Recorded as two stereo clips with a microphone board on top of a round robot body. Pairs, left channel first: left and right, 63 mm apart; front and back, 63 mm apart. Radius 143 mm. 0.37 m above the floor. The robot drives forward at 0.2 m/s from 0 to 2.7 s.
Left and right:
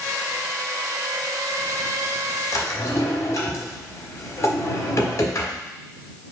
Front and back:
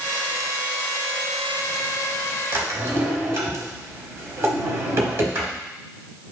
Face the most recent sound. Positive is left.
turn(degrees=135)